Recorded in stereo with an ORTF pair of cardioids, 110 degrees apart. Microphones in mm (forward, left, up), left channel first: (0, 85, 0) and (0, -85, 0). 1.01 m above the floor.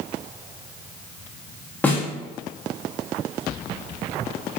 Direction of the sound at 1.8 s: 10° left.